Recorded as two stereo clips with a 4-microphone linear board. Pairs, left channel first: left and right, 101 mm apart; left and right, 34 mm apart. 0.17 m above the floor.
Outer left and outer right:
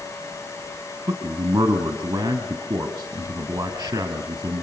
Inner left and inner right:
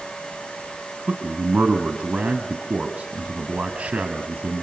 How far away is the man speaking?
About 2 m.